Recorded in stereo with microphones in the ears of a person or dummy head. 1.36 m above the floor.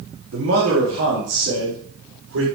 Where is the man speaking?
80° right, 2.5 m; by 2.5 s 90° right, 4.5 m.